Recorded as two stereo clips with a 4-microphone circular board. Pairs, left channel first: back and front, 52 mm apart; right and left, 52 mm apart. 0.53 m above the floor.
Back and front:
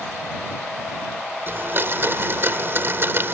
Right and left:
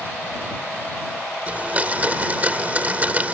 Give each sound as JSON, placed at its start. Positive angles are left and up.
{"t": 1.5, "sound": "a blender", "azimuth_deg": 35}